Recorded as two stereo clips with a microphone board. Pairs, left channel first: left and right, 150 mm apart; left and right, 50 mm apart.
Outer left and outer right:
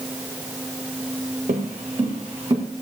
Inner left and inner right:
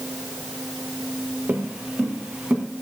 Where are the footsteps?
45° right (ahead or behind), 1.1 m; by 2.6 s 30° right (ahead or behind), 2.5 m.